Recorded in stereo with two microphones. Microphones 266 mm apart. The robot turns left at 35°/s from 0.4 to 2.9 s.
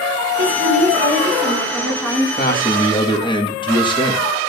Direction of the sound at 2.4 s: 35° left (ahead or behind).